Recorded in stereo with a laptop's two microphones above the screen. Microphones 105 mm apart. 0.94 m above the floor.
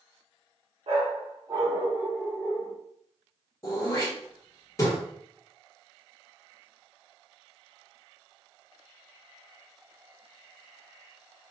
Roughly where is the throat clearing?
Left.